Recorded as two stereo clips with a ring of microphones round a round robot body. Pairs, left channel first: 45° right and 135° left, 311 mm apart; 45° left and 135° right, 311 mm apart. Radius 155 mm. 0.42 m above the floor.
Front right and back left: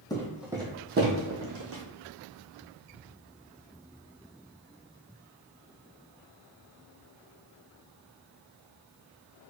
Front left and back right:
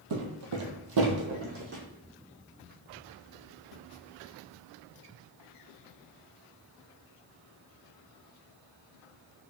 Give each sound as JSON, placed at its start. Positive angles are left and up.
{"t": 0.1, "sound": "footsteps", "azimuth_deg": -125, "distance_m": 0.9}